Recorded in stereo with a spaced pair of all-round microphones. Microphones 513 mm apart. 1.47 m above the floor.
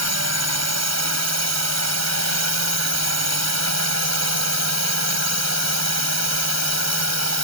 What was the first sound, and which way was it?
A drone, 30° right (ahead or behind).